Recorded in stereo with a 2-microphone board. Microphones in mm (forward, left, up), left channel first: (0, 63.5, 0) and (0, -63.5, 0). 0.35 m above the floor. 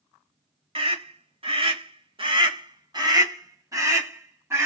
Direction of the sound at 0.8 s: 45° right (ahead or behind).